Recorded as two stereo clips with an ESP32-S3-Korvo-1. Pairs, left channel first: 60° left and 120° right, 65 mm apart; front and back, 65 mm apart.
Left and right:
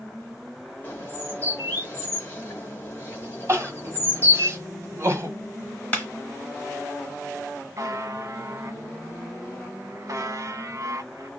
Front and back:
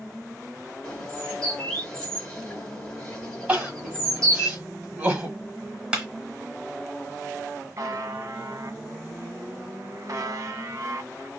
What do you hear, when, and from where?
0.8 s a bird: 65° left, 1.5 m
3.5 s crying: 125° right, 1.9 m
5.9 s a clap: 115° left, 1.2 m
7.8 s a buzzer: 150° right, 0.6 m